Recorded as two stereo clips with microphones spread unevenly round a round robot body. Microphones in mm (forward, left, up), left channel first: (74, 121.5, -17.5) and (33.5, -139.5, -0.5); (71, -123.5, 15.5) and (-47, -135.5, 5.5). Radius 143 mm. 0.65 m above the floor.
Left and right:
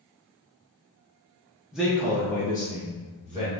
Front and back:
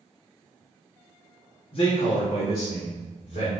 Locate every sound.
1.7 s a man speaking: 10° right, 0.7 m; by 3.5 s 10° left, 1.9 m